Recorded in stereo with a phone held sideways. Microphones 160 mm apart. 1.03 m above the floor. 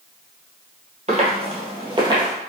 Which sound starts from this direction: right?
Footsteps, at 1.1 s.